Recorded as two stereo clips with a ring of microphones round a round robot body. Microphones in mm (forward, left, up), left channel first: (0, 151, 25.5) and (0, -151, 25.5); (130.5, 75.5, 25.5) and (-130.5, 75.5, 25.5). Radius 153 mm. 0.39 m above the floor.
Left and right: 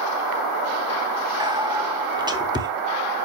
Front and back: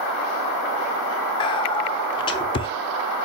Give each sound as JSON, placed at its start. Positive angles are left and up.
{"t": 1.4, "sound": "whispering", "azimuth_deg": -35, "distance_m": 1.2}